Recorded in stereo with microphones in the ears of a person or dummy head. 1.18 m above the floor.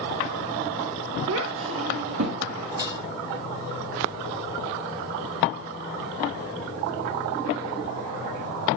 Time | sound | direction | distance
1.3 | a child speaking | 70° right (ahead or behind) | 1.0 m
2.8 | dishes clattering | 20° right (ahead or behind) | 1.2 m